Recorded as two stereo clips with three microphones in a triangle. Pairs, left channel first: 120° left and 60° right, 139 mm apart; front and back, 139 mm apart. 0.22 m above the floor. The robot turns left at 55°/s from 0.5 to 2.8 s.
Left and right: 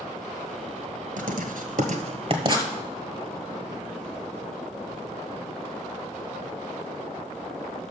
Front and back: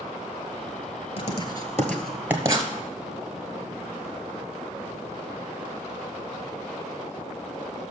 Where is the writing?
40° right, 1.1 m; by 2.7 s 125° right, 1.1 m.